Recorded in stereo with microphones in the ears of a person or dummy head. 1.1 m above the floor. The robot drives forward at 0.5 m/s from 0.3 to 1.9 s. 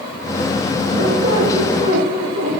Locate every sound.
0.9 s a squeak: 30° right (ahead or behind), 9.5 m